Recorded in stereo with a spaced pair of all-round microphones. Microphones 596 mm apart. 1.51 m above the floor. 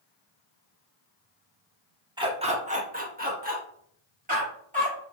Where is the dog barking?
5° right (ahead or behind), 0.9 m; by 5.0 s 15° right (ahead or behind), 2.5 m.